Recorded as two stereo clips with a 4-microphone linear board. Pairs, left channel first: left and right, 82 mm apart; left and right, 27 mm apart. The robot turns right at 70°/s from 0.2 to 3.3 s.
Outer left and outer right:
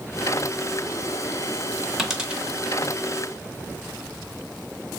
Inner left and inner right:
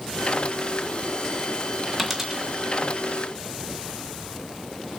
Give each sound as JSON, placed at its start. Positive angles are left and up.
{"t": 2.0, "sound": "a dropped coin", "side_deg": 0, "distance_m": 0.6}